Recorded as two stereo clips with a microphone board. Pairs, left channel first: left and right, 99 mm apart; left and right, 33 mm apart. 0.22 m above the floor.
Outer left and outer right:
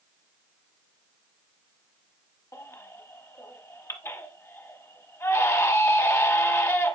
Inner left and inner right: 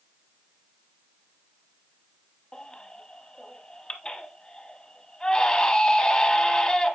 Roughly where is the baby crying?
Left.